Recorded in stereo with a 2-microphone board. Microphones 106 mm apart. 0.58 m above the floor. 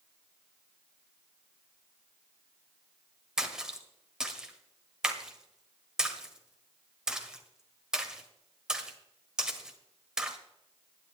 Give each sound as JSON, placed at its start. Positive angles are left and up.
{"t": 3.4, "sound": "a splash", "side_deg": -5, "distance_m": 1.5}